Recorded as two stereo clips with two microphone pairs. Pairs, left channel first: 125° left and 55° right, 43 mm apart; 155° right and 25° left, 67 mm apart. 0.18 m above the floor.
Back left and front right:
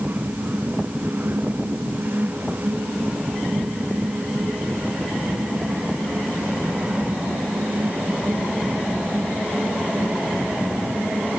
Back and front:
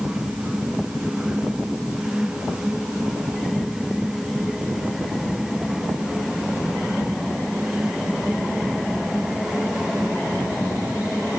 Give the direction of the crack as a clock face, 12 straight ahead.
I don't hear a crack.